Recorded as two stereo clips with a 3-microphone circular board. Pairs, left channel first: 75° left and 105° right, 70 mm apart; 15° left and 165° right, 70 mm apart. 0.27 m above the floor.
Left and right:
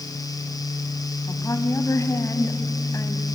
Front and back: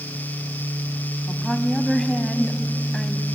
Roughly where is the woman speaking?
Left.